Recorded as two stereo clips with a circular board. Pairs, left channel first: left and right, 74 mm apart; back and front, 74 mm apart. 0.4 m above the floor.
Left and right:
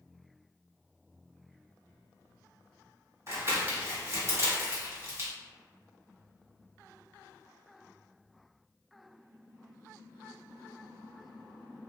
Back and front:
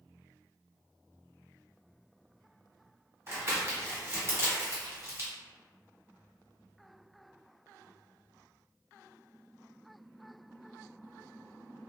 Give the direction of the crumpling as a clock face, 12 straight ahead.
2 o'clock.